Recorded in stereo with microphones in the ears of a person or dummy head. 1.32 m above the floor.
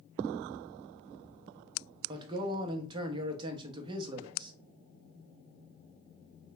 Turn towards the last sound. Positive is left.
turn(degrees=-25)  # may be behind; listen again after turning